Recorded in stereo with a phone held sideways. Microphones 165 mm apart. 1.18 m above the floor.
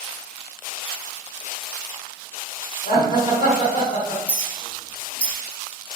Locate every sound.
2.9 s laughter: 45° left (ahead or behind), 1.4 m
4.3 s a clink: 10° left (ahead or behind), 1.4 m